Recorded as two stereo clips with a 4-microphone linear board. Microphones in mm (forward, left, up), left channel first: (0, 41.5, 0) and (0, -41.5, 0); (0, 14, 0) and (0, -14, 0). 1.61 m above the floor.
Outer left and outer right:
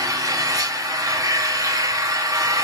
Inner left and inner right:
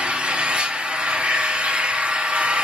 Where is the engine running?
45° right (ahead or behind), 0.9 m.